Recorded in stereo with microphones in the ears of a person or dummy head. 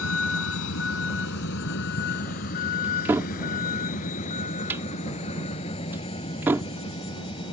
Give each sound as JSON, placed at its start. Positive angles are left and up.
{"t": 0.0, "sound": "a vehicle", "side_deg": 80}
{"t": 2.8, "sound": "a cupboard door", "side_deg": -10}